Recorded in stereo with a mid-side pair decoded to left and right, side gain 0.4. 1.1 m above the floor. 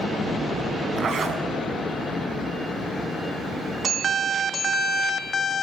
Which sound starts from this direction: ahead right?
A zipper, at 1.0 s.